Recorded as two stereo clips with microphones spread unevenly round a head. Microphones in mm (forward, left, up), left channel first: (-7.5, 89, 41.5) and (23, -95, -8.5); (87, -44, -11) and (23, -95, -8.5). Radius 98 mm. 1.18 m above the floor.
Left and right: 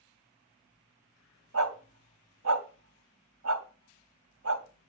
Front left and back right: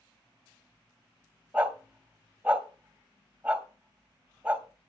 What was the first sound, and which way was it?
A dog barking, 70° right.